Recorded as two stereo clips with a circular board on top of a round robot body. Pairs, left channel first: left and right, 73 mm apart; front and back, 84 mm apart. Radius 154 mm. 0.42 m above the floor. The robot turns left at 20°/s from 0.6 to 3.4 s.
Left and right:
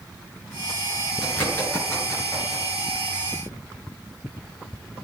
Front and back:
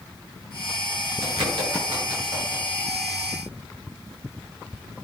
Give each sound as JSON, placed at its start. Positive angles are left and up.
{"t": 1.2, "sound": "a bird", "azimuth_deg": 160, "distance_m": 8.0}